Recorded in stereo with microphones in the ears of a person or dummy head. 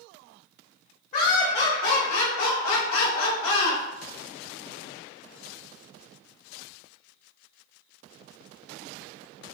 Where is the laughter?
45° left (ahead or behind), 1.7 m; by 3.8 s 70° left (ahead or behind), 1.7 m.